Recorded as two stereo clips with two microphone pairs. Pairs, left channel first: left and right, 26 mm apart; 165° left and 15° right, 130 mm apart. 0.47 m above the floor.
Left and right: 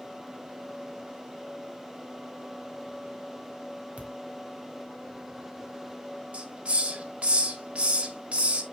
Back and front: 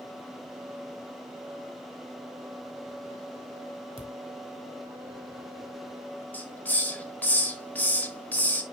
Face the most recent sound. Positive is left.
turn(degrees=-120)